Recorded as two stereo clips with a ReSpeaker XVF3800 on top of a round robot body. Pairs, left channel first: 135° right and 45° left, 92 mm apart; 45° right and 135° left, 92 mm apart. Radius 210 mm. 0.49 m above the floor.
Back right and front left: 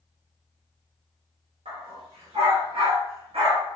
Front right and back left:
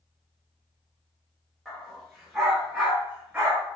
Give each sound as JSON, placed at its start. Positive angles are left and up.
{"t": 1.6, "sound": "a dog barking", "azimuth_deg": 45, "distance_m": 5.0}